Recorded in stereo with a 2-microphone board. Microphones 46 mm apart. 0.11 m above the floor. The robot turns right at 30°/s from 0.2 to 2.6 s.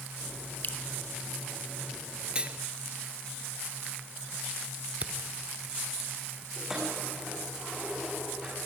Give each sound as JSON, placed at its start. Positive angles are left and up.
{"t": 0.6, "sound": "dripping", "side_deg": 40, "distance_m": 0.8}
{"t": 2.4, "sound": "cutlery clinking", "side_deg": -25, "distance_m": 1.1}
{"t": 5.0, "sound": "a camera shutter", "side_deg": -30, "distance_m": 1.3}
{"t": 6.6, "sound": "keys jangling", "side_deg": -10, "distance_m": 7.5}